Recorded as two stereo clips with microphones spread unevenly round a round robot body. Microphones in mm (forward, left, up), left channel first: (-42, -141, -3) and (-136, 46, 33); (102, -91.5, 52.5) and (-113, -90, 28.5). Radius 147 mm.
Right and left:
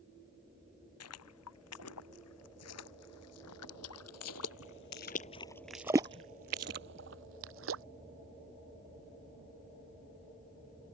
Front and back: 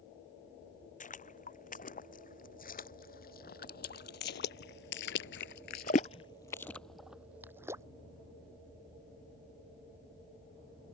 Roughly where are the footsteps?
Ahead right.